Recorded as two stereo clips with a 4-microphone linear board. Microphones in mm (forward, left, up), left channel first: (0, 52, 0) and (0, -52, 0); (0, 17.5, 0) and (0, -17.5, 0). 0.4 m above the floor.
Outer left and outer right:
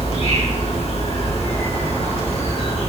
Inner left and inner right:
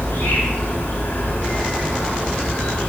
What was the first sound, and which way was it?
An insect, 75° left (ahead or behind).